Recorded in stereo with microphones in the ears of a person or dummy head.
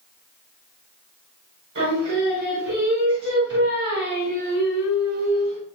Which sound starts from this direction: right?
Singing, at 1.8 s.